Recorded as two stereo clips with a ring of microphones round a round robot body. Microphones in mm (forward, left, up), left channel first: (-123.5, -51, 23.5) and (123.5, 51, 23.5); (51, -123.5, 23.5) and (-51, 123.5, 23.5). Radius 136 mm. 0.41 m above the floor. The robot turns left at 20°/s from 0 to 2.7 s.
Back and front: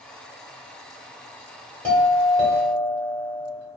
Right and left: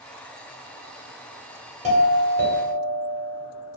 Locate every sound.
1.8 s a doorbell: 120° left, 1.2 m; by 3.5 s 105° left, 1.2 m